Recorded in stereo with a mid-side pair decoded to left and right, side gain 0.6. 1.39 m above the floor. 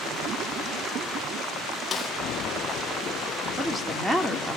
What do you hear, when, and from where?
1.9 s a snare drum: 30° left, 2.5 m
3.6 s a woman speaking: 5° right, 4 m